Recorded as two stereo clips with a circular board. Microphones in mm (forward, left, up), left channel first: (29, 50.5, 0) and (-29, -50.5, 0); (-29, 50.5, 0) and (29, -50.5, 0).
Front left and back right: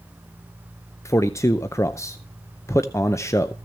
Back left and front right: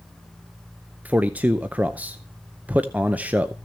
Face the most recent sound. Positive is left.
turn(degrees=10)